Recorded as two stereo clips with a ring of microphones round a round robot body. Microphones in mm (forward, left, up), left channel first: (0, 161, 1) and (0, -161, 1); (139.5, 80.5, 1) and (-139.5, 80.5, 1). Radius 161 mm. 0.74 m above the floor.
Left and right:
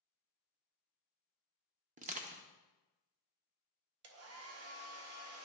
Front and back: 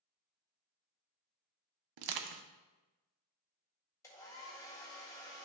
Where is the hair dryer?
75° right, 0.7 m.